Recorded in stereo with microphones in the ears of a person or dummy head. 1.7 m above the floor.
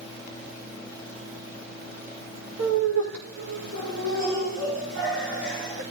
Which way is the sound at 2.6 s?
70° right (ahead or behind).